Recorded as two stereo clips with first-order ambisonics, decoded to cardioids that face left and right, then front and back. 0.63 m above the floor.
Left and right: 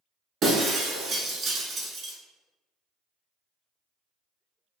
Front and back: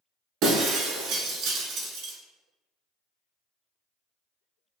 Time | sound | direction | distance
0.4 | breaking glass | 150° right | 0.9 m